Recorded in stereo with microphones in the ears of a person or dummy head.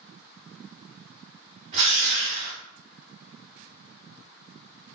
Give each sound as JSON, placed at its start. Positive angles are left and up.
{"t": 1.7, "sound": "a drill", "side_deg": -35, "distance_m": 1.6}